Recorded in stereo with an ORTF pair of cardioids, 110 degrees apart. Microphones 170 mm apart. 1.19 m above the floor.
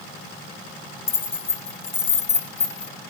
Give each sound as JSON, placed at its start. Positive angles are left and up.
{"t": 1.1, "sound": "keys jangling", "azimuth_deg": 15, "distance_m": 0.7}